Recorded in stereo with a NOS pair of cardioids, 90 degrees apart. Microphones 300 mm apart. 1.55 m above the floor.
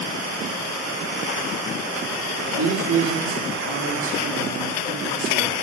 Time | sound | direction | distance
2.5 | a man speaking | 50° right | 4 m